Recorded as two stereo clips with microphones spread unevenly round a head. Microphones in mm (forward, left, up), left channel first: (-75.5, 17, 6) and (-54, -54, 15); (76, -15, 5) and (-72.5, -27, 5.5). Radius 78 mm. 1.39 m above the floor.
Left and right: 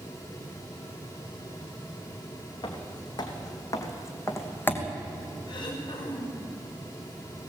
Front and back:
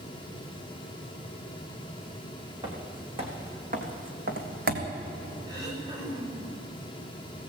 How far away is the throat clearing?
About 5.5 m.